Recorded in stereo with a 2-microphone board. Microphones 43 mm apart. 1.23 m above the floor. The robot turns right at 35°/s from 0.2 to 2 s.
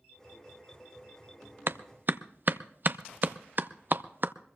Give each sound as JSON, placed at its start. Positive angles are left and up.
{"t": 1.7, "sound": "a clap", "side_deg": -60, "distance_m": 0.5}